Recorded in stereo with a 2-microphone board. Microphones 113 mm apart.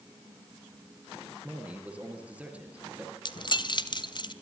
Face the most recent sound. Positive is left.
turn(degrees=45)  # may be behind; listen again after turning